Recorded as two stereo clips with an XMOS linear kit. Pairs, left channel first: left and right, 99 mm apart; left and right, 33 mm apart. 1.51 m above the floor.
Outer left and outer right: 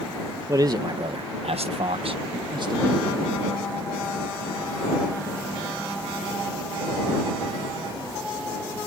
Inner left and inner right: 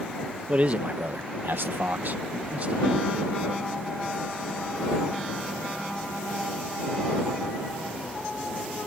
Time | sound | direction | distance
0.5 | a man speaking | 35° right (ahead or behind) | ?